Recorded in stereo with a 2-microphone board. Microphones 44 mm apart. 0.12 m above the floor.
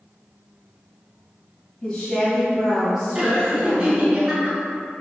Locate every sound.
1.8 s a woman speaking: 15° left (ahead or behind), 2.0 m; by 4.2 s 15° right (ahead or behind), 2.5 m
3.1 s laughter: 15° right (ahead or behind), 1.3 m